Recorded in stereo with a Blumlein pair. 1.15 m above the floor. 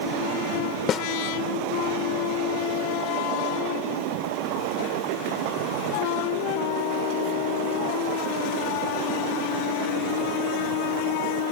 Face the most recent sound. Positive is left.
turn(degrees=25)